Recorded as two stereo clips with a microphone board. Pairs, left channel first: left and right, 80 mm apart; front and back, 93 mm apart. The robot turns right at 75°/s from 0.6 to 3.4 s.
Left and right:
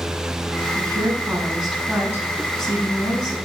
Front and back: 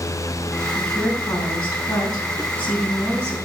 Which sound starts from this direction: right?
A woman speaking, at 0.8 s.